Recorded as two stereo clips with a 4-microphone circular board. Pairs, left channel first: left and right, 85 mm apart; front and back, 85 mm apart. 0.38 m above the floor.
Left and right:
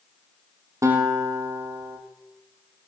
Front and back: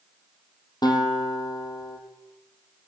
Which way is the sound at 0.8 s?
35° right.